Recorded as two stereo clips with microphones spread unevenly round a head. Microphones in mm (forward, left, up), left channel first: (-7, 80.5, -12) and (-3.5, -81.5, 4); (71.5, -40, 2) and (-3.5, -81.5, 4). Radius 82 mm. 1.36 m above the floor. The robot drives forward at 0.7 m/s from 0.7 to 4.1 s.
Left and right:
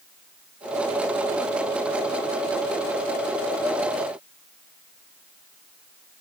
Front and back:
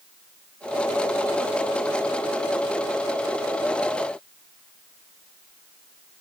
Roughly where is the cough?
No cough in this recording.